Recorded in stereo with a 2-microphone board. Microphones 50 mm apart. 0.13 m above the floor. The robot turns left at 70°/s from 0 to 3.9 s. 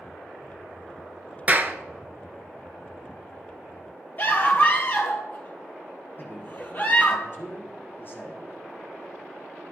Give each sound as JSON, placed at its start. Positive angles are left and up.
{"t": 1.5, "sound": "a clap", "side_deg": -30, "distance_m": 1.2}
{"t": 4.2, "sound": "a scream", "side_deg": 40, "distance_m": 2.5}
{"t": 6.2, "sound": "a man speaking", "side_deg": 45, "distance_m": 5.5}